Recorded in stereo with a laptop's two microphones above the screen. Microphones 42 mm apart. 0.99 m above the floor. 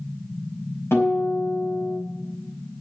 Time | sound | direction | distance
0.9 | a guitar | 75° left (ahead or behind) | 4.5 m